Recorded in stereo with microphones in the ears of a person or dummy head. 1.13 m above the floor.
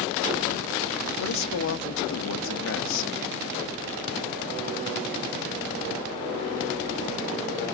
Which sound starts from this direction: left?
A man speaking, at 1.2 s.